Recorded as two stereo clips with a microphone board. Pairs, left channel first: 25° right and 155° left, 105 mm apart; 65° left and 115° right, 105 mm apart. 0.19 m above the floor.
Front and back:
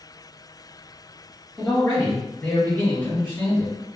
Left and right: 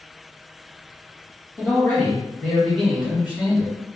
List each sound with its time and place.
1.6 s a man speaking: 65° left, 1.4 m; by 3.7 s 55° right, 1.5 m